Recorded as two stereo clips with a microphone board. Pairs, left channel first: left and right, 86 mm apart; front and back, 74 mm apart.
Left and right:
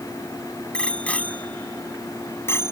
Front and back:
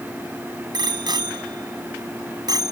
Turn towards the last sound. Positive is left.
turn(degrees=150)